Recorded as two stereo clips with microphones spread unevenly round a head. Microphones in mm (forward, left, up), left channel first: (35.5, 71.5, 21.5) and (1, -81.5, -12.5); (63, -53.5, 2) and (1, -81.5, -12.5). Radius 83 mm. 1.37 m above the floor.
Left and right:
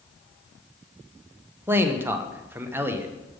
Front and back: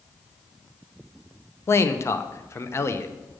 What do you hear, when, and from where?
1.7 s a man speaking: 25° right, 0.6 m